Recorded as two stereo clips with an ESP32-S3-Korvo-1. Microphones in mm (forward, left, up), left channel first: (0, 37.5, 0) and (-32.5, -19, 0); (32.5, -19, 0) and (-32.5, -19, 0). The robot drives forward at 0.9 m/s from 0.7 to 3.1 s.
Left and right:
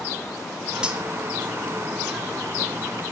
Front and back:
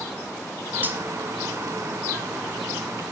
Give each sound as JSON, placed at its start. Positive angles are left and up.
{"t": 0.8, "sound": "cutlery clinking", "azimuth_deg": 180, "distance_m": 0.8}